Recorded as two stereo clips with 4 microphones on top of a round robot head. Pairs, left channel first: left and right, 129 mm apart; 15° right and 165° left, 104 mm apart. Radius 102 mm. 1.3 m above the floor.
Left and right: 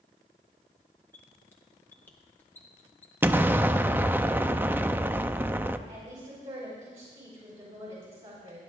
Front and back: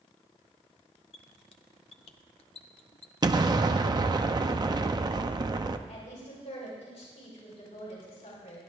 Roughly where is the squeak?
Ahead.